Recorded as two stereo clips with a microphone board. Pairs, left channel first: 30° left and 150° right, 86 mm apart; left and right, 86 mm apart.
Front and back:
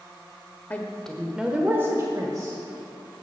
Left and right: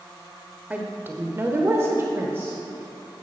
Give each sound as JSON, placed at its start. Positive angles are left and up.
{"t": 0.7, "sound": "a woman speaking", "azimuth_deg": -30, "distance_m": 0.9}